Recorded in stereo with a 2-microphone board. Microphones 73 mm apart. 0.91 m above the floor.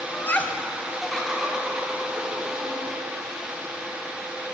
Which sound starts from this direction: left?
Laughter, at 0.1 s.